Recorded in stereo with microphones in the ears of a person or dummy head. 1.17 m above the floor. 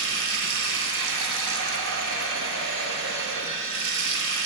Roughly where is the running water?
Right.